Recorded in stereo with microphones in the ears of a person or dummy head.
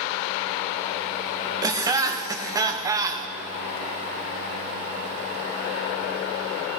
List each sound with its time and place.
1.6 s laughter: 25° right (ahead or behind), 0.9 m